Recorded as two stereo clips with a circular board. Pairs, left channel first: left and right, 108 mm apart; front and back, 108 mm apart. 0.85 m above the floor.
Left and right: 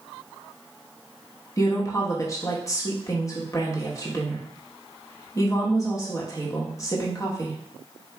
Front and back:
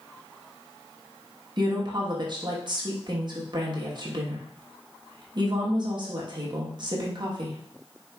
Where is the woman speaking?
145° left, 1.2 m.